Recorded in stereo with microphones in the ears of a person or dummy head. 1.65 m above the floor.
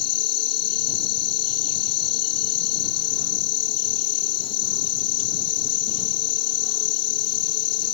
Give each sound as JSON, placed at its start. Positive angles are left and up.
{"t": 0.0, "sound": "an insect", "side_deg": 30}